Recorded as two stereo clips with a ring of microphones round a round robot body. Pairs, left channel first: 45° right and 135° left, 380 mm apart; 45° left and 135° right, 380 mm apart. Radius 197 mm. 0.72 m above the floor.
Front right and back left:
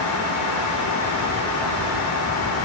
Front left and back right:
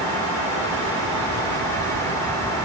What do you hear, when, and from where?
Only background noise.